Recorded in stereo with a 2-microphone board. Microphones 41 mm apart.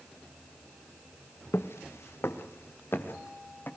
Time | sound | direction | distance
1.5 | footsteps | 70° left (ahead or behind) | 1.1 m